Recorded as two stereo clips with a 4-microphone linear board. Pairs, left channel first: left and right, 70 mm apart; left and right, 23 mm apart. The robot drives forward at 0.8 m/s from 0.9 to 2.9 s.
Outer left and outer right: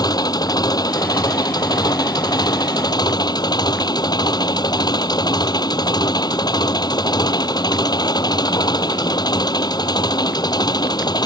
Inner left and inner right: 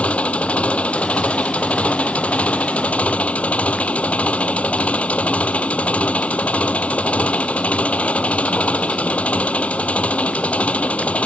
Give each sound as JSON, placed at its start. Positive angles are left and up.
{"t": 0.0, "sound": "an engine running", "side_deg": 70}